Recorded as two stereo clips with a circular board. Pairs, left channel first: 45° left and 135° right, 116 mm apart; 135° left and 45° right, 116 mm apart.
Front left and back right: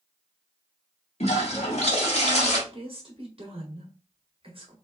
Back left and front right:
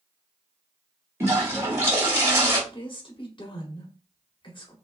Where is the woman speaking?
175° right, 1.5 m.